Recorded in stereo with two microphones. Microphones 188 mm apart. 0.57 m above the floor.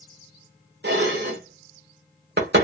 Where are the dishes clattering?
65° right (ahead or behind), 1.1 m.